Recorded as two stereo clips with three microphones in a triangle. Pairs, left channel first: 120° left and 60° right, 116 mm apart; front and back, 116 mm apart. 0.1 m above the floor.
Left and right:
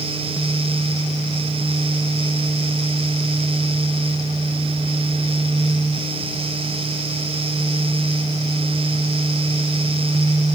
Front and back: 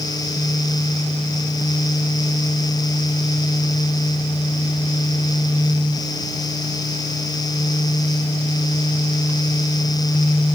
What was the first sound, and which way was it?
Only background noise.